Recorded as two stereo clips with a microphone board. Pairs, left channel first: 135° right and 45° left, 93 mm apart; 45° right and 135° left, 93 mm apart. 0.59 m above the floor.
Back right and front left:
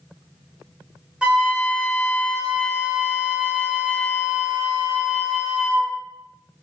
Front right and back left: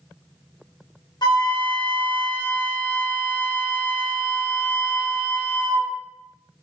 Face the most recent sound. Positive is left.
turn(degrees=-30)